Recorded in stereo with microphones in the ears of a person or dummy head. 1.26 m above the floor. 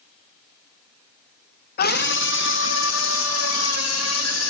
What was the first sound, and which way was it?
A scream, 45° left (ahead or behind).